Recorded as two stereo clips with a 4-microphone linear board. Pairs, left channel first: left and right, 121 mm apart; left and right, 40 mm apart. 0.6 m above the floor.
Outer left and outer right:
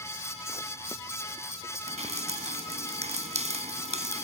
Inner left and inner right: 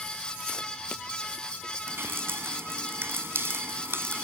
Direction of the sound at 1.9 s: 70° right (ahead or behind).